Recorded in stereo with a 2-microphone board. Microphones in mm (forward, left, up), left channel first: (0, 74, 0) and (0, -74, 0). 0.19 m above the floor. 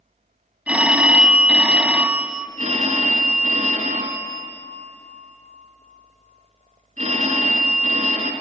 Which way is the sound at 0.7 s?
10° right (ahead or behind).